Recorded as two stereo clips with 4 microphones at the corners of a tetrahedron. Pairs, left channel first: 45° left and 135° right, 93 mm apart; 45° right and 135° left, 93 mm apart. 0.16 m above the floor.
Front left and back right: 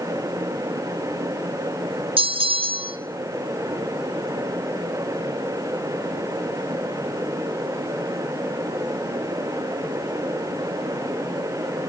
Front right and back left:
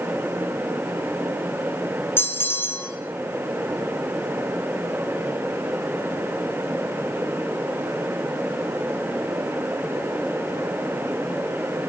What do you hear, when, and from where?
2.2 s a bell: 110° right, 2.5 m